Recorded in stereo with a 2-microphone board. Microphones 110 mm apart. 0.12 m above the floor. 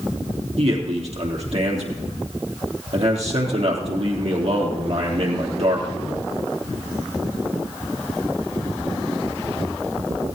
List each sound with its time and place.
0.6 s a man speaking: 65° right (ahead or behind), 3.5 m